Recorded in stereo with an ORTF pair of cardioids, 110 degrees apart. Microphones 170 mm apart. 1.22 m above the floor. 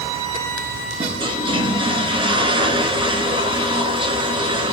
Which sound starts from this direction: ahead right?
A toilet flushing, at 1.0 s.